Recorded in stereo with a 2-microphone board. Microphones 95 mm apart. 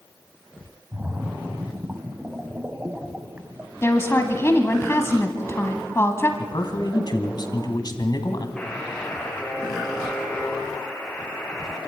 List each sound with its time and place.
0.9 s a splash: 15° right (ahead or behind), 1.1 m
3.8 s a woman speaking: 30° left (ahead or behind), 1.4 m
6.4 s a man speaking: 50° left (ahead or behind), 1.9 m
8.6 s a buzzer: 10° left (ahead or behind), 5 m